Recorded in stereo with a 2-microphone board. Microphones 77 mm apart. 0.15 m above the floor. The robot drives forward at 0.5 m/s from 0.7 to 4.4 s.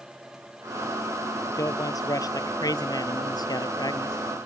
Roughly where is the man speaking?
Left.